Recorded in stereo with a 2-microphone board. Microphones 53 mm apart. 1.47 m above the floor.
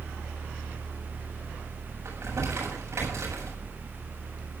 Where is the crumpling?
65° right (ahead or behind), 8 m.